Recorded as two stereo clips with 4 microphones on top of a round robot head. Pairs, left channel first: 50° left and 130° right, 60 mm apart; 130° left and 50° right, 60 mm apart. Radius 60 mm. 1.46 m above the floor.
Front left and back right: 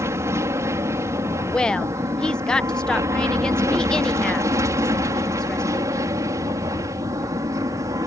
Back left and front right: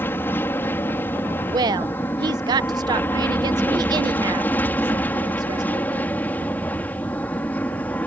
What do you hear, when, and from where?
0.0 s an aircraft: 175° right; by 8.1 s 165° right
1.5 s a woman speaking: 30° right